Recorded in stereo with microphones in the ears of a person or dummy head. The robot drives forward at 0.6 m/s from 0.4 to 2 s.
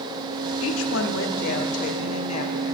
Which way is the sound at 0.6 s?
80° left.